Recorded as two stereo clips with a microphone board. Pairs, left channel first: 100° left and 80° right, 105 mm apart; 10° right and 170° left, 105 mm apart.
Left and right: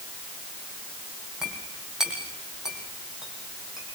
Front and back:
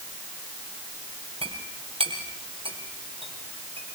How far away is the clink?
About 5 m.